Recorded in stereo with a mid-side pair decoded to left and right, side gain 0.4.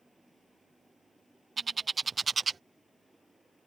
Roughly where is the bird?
Ahead right.